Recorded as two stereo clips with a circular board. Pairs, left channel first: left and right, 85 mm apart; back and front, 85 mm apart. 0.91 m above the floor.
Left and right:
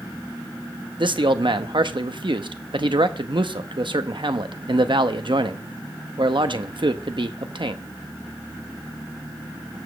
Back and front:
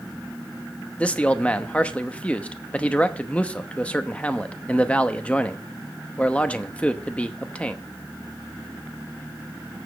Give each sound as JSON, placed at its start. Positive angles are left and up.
{"t": 1.0, "sound": "a man speaking", "azimuth_deg": -105, "distance_m": 0.8}